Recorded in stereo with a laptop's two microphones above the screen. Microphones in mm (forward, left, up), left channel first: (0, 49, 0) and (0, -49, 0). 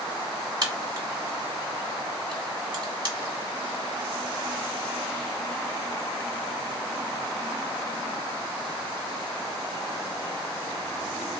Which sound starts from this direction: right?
A crack, at 0.6 s.